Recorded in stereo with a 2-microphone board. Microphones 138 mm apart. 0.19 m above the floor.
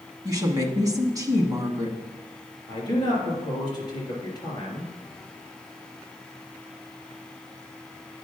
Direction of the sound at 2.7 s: 30° left (ahead or behind).